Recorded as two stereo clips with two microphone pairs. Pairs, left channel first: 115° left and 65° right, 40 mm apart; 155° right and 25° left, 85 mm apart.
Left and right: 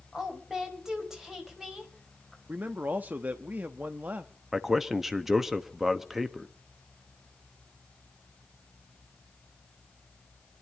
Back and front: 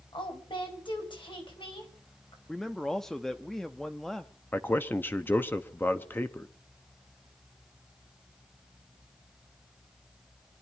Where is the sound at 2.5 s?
70° right, 0.7 m.